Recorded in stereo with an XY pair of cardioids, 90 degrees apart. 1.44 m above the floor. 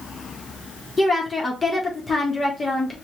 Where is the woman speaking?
20° left, 1.5 m.